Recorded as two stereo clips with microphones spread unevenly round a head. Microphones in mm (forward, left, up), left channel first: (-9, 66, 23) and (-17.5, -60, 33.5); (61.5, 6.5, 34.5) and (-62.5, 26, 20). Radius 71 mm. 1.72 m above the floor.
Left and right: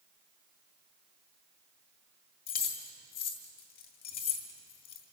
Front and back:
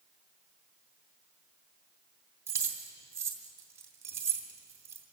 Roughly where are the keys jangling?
Left.